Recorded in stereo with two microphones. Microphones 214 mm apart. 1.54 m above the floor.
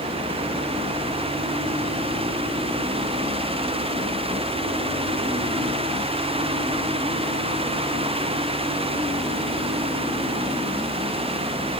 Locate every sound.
Only background noise.